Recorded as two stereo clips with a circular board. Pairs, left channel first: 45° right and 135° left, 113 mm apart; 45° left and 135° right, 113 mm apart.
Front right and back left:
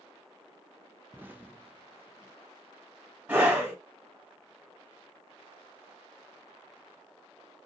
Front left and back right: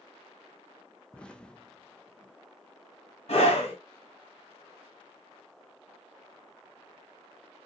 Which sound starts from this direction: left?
An explosion, at 1.1 s.